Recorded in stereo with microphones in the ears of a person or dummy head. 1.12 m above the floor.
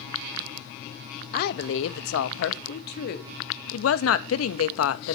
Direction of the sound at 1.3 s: 50° left (ahead or behind).